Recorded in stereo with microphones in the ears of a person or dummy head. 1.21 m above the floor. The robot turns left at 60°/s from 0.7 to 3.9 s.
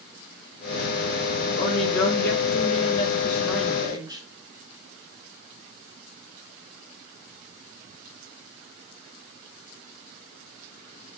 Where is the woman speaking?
115° left, 0.9 m; by 4.2 s 25° right, 0.9 m.